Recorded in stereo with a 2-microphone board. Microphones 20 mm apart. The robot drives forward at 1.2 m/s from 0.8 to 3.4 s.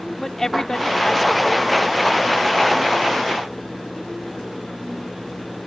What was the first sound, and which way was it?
A woman speaking, 30° left (ahead or behind).